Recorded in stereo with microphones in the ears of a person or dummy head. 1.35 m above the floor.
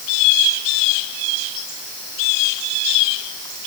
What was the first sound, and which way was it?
Only background noise.